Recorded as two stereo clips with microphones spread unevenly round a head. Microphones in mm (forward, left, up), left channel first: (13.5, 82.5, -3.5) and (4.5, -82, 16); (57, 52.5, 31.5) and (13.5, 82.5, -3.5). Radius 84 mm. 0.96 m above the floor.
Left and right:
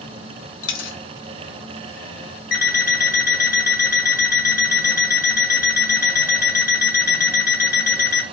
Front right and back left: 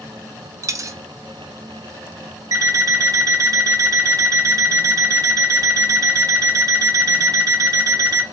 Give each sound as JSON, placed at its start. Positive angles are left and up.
{"t": 0.6, "sound": "a dropped coin", "azimuth_deg": 100, "distance_m": 0.7}
{"t": 2.5, "sound": "an alarm clock", "azimuth_deg": 125, "distance_m": 2.0}